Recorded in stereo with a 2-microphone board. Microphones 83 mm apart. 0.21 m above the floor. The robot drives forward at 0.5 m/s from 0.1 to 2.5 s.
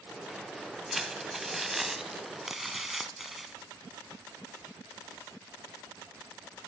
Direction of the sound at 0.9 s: 5° right (ahead or behind).